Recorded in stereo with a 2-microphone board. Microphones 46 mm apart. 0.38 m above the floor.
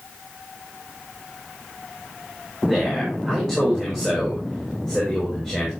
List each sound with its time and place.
2.6 s a man speaking: 10° left (ahead or behind), 6.5 m